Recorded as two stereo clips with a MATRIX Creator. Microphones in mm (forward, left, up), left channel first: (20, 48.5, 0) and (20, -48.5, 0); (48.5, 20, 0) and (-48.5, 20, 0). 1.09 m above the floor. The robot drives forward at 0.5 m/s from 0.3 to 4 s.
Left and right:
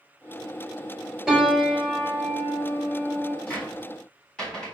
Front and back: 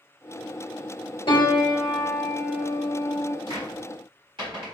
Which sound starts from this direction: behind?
A cupboard door, at 3.5 s.